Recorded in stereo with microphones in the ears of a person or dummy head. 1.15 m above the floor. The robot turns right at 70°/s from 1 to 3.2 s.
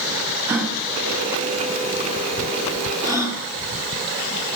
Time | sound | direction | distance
0.5 | a gasp | 15° right (ahead or behind) | 2.5 m